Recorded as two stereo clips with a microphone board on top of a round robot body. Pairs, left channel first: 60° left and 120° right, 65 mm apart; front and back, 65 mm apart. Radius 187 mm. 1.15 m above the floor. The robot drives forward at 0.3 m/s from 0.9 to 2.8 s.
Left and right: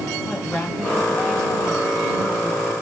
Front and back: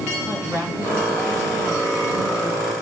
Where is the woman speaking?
140° left, 9 m.